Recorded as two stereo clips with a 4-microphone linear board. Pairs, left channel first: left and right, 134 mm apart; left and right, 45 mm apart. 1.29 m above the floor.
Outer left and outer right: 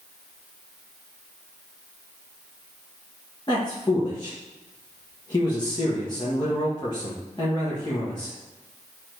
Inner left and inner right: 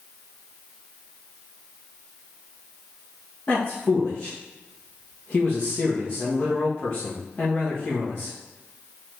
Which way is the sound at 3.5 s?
30° left (ahead or behind).